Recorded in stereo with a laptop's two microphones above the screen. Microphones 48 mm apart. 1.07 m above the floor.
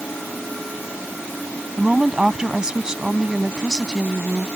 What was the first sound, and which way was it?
A woman speaking, 15° right (ahead or behind).